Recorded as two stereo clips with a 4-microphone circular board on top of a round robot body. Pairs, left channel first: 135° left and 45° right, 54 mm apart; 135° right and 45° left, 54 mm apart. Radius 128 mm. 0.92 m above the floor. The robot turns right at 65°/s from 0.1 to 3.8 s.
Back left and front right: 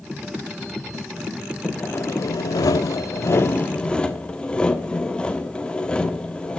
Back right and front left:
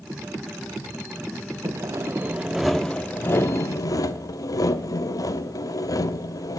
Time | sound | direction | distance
1.6 | sawing | 65° left | 1.0 m